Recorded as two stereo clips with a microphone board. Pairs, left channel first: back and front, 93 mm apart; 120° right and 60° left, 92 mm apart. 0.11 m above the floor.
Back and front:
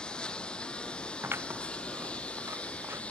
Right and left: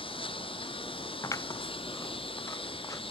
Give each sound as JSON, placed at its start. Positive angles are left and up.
{"t": 0.0, "sound": "a lawn mower", "azimuth_deg": -100}
{"t": 1.2, "sound": "scissors", "azimuth_deg": -65}